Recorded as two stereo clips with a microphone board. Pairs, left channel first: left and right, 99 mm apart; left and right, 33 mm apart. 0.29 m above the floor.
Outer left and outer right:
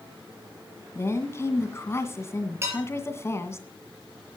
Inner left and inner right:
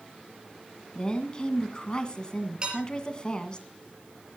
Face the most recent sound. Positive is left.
turn(degrees=-25)  # may be behind; listen again after turning